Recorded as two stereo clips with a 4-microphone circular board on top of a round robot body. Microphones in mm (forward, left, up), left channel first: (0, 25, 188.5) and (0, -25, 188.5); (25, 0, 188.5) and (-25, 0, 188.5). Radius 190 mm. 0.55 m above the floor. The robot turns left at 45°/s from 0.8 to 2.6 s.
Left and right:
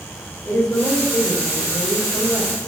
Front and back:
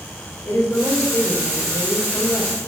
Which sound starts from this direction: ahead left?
A woman speaking, at 0.5 s.